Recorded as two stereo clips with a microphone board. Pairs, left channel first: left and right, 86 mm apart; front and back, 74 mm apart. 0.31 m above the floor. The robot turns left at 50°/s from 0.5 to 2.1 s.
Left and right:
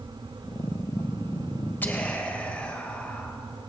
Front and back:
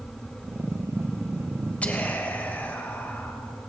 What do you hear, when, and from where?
1.8 s whispering: 50° left, 1.5 m; by 3.4 s 35° left, 1.5 m